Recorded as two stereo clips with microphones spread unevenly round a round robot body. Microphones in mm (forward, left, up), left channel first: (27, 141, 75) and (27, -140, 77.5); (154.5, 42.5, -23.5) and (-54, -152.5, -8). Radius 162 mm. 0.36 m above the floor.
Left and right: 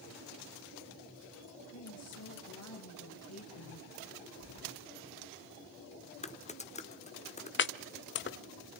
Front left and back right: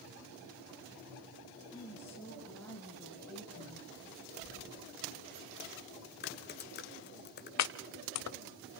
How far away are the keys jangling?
About 4 m.